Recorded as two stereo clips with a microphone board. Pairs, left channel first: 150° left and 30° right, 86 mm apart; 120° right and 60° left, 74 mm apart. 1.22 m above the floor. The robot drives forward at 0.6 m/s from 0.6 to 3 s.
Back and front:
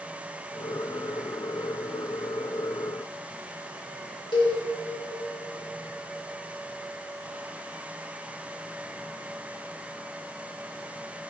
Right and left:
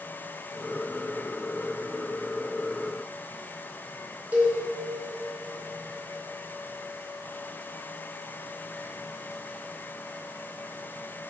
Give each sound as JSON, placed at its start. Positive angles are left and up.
{"t": 4.3, "sound": "a cowbell", "azimuth_deg": 130, "distance_m": 1.8}